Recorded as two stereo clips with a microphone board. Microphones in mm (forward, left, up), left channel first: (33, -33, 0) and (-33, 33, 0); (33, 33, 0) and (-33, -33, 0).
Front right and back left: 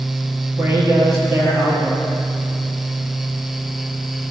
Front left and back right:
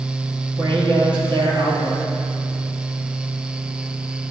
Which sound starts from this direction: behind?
A man speaking, at 0.6 s.